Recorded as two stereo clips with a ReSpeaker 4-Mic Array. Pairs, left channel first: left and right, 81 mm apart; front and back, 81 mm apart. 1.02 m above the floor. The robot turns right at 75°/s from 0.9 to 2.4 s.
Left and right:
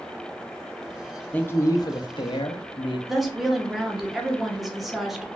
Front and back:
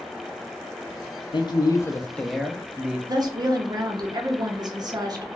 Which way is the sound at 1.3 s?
15° left.